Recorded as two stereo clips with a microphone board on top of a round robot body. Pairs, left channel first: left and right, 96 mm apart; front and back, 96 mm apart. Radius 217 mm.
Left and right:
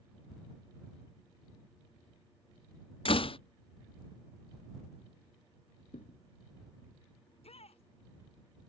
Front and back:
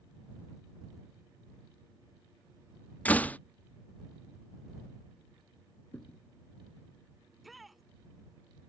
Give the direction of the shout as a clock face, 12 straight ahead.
9 o'clock.